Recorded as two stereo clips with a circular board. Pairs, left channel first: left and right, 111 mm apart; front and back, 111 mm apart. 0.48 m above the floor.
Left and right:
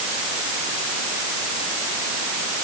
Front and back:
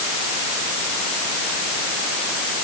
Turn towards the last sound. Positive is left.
No sound to turn to.